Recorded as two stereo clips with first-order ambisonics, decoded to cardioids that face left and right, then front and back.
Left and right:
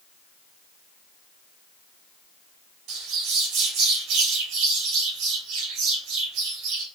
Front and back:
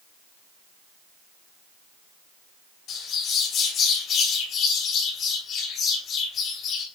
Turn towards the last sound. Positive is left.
turn(degrees=-55)